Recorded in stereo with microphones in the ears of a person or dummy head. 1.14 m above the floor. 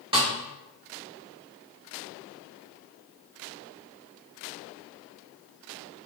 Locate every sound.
0.1 s a snare drum: 25° right (ahead or behind), 1.5 m